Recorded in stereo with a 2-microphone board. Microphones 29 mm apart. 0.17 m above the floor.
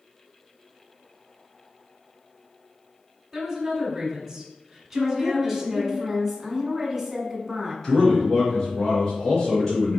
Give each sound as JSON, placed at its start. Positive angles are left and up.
{"t": 3.3, "sound": "a woman speaking", "side_deg": -5, "distance_m": 1.4}
{"t": 4.9, "sound": "a woman speaking", "side_deg": -10, "distance_m": 1.2}
{"t": 7.8, "sound": "a man speaking", "side_deg": 20, "distance_m": 1.8}